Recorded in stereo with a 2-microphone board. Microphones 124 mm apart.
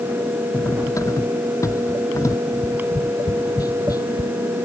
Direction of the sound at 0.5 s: 25° left (ahead or behind).